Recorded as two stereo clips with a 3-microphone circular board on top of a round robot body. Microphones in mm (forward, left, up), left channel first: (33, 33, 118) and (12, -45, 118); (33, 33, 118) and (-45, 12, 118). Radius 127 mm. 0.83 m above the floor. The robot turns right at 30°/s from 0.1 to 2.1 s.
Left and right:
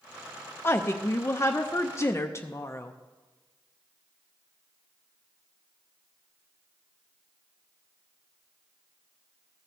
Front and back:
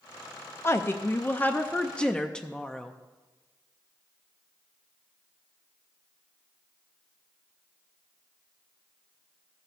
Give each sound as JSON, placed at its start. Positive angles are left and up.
{"t": 0.6, "sound": "a woman speaking", "azimuth_deg": 40, "distance_m": 0.6}